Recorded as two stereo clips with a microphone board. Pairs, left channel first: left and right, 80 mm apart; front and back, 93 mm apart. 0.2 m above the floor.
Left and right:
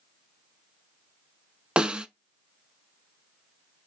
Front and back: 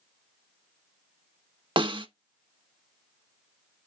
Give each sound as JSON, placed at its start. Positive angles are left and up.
{"t": 1.8, "sound": "a snare drum", "azimuth_deg": -165, "distance_m": 0.7}